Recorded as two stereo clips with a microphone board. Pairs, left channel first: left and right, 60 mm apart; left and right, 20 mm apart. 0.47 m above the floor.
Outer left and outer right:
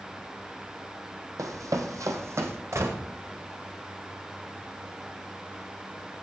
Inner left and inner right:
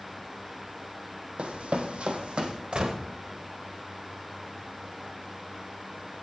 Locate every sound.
1.4 s running footsteps: 70° right (ahead or behind), 1.2 m; by 2.6 s 45° right (ahead or behind), 1.5 m
2.7 s a gunshot: 55° right (ahead or behind), 1.3 m